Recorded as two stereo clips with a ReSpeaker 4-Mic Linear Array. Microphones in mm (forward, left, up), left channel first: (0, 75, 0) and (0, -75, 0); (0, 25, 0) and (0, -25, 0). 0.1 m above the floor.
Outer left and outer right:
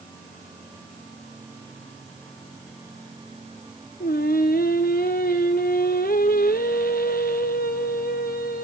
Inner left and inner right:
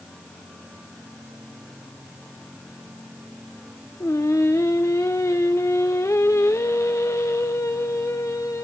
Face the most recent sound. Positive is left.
turn(degrees=85)